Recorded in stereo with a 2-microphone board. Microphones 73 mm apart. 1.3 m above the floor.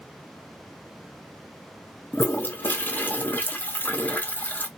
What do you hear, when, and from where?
2.1 s a toilet flushing: 25° left (ahead or behind), 0.6 m